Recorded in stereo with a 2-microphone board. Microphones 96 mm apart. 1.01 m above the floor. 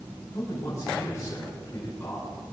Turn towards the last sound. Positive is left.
turn(degrees=30)  # may be behind; listen again after turning